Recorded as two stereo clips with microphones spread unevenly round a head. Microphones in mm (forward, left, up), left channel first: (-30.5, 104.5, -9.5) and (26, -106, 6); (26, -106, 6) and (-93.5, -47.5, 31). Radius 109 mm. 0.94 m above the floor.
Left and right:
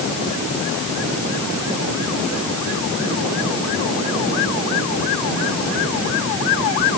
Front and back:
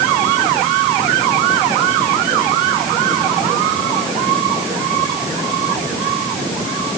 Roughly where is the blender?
No blender in this recording.